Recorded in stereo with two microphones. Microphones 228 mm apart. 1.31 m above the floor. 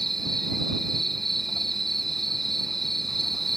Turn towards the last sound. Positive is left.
turn(degrees=0)  # may be behind; listen again after turning